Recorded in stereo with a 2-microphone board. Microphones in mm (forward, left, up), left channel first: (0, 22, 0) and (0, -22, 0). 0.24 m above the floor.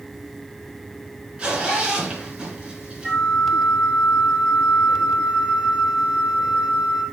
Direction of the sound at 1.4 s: 25° right (ahead or behind).